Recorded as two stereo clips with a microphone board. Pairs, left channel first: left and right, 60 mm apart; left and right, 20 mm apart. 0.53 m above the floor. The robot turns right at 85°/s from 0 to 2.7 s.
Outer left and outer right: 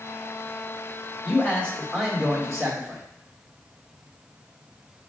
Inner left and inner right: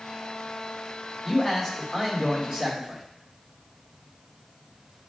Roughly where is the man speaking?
Behind left.